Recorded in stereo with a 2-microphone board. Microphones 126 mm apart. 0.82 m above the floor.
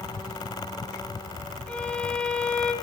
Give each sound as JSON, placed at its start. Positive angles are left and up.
{"t": 1.7, "sound": "a violin", "side_deg": 10, "distance_m": 3.0}